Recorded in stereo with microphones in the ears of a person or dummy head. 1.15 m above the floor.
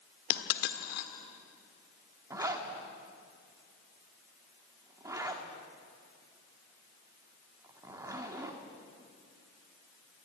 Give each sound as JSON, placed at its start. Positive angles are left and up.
{"t": 0.3, "sound": "a dropped coin", "side_deg": 60, "distance_m": 1.2}
{"t": 2.3, "sound": "a zipper", "side_deg": -25, "distance_m": 1.6}